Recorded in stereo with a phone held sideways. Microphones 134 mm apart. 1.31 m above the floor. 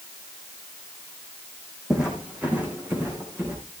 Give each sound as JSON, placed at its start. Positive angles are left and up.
{"t": 1.9, "sound": "footsteps", "side_deg": -5, "distance_m": 3.5}